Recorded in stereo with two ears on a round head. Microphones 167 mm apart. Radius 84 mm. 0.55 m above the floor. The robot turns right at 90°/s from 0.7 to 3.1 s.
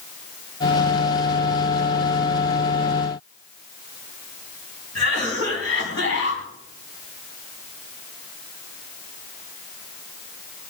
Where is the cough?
75° left (ahead or behind), 4.5 m.